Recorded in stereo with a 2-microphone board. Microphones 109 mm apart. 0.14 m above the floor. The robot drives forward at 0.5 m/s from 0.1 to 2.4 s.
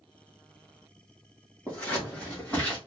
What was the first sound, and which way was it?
Scissors, 15° left (ahead or behind).